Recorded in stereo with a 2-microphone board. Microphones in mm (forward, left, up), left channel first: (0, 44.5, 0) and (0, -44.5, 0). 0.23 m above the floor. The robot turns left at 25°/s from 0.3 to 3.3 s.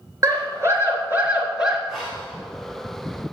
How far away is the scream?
About 3 m.